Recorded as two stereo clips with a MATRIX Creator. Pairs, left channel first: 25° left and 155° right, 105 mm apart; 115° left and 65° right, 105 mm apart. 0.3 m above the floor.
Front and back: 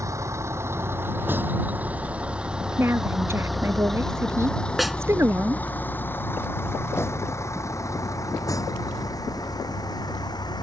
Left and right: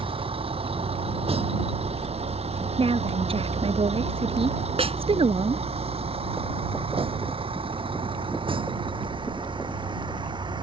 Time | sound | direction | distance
0.0 | a vehicle | 95° right | ?
2.8 | a woman speaking | 90° right | ?
4.8 | a snare drum | 70° right | ?